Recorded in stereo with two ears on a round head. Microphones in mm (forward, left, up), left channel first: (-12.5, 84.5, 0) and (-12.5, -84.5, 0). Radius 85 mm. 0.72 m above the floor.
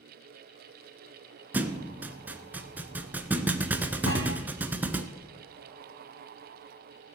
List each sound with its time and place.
1.5 s a thud: 10° right (ahead or behind), 0.8 m
4.1 s a thud: 80° left, 4.5 m